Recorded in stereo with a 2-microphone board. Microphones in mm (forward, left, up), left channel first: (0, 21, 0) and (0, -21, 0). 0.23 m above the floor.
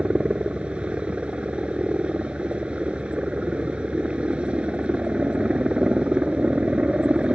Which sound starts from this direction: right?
A helicopter, at 0.0 s.